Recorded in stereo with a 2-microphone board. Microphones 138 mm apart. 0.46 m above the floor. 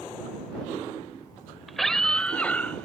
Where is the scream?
Centre (ahead or behind); by 2.9 s 10° left (ahead or behind).